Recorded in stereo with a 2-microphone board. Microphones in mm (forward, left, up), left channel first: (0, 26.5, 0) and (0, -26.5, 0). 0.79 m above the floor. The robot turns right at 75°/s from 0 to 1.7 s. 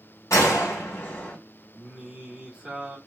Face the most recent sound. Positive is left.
turn(degrees=-20)  # may be behind; listen again after turning